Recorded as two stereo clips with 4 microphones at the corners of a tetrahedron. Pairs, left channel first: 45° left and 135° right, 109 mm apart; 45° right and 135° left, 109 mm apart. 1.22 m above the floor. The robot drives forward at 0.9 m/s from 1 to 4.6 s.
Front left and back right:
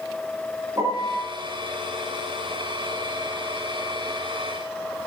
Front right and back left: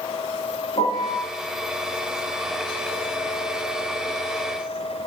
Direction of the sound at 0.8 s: 75° right.